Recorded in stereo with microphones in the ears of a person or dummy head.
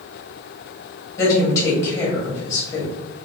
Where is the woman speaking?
20° left (ahead or behind), 1.3 m.